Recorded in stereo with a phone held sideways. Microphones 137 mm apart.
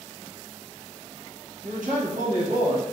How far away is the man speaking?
About 0.9 m.